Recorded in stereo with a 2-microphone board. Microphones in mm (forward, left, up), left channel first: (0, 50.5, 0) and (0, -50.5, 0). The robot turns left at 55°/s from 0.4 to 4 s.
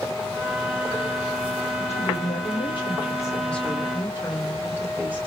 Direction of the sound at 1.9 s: 100° left.